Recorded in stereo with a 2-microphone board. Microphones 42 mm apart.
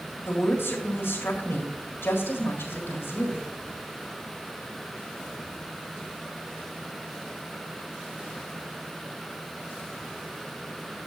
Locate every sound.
0.2 s a woman speaking: 60° left (ahead or behind), 4.5 m